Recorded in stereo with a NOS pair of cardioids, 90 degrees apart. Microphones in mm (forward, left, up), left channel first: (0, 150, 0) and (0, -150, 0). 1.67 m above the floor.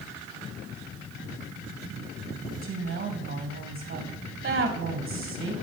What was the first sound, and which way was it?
A woman speaking, 45° right.